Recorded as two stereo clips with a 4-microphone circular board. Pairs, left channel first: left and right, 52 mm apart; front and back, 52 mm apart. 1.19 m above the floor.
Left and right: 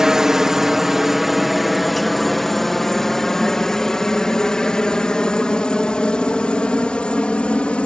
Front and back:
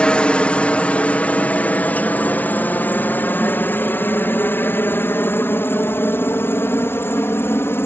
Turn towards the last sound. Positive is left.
turn(degrees=25)